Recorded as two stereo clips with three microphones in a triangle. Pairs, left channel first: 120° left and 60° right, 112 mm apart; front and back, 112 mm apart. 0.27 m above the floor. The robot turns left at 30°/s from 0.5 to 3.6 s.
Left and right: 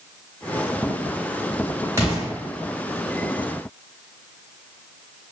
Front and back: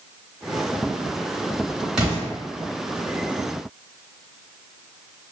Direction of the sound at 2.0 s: 105° right.